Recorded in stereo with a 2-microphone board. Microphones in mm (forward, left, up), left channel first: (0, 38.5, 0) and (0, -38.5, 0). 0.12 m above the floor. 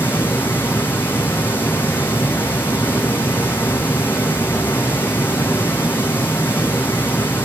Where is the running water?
25° left (ahead or behind), 2 m.